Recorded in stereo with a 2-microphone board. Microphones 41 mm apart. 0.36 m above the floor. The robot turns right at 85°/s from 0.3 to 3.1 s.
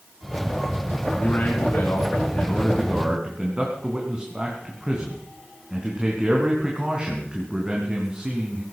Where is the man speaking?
30° left, 3.5 m; by 8.6 s 165° right, 3.5 m.